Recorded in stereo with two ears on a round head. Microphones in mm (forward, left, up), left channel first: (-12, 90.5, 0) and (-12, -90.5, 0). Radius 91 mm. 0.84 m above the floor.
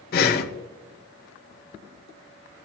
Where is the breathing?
50° left (ahead or behind), 0.9 m.